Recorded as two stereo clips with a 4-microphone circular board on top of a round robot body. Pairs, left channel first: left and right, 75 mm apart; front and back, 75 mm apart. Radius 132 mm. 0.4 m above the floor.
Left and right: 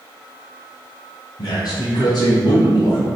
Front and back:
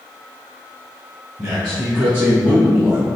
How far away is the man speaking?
About 3 m.